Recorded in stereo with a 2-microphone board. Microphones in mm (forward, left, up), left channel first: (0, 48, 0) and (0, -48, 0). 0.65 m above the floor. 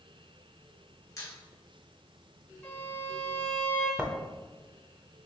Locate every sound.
1.2 s a squeak: 35° left (ahead or behind), 1.2 m
2.6 s a violin: 15° left (ahead or behind), 1.2 m
4.0 s writing: 10° right (ahead or behind), 0.5 m